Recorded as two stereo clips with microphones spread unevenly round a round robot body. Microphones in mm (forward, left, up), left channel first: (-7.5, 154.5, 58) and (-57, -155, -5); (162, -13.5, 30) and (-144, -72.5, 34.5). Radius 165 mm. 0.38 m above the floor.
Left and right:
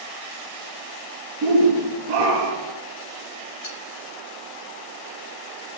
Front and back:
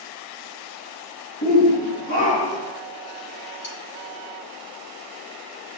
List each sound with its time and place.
1.4 s a shout: 45° right, 5 m; by 2.8 s 60° right, 5 m
3.6 s cutlery clinking: 70° left, 5 m